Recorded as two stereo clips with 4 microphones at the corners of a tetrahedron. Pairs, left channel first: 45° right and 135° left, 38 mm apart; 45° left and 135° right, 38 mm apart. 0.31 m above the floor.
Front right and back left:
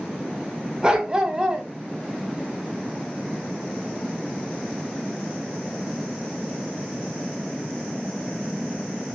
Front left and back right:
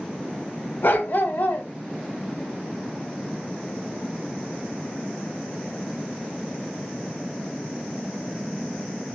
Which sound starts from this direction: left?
A dog barking, at 0.8 s.